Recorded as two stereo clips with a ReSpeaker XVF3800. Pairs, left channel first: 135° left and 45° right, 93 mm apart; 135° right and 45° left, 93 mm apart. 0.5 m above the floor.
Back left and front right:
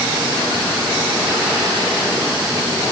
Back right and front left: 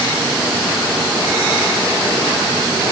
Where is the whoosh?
No whoosh in this recording.